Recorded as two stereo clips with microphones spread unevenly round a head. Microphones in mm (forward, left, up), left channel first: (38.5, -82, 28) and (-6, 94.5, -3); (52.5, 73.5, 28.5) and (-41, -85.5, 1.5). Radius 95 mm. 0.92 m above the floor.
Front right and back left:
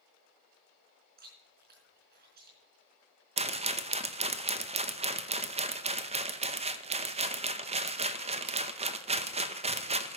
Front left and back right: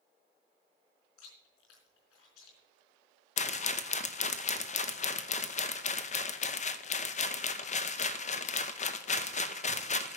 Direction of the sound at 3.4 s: 100° left.